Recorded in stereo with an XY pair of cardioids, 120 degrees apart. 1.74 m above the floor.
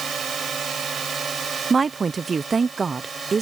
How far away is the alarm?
I don't hear an alarm.